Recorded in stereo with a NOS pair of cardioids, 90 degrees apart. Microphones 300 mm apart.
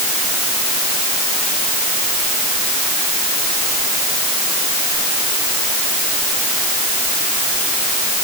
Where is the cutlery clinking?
No cutlery clinking in this recording.